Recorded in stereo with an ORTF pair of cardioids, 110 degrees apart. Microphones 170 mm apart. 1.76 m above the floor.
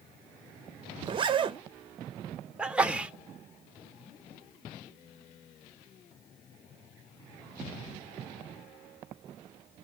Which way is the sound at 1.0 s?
30° right.